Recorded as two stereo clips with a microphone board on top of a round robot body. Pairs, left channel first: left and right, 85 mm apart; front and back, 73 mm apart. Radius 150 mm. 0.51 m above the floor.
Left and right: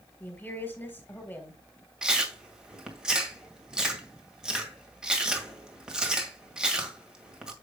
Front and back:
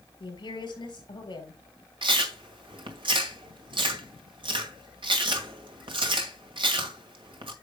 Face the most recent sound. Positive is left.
turn(degrees=-170)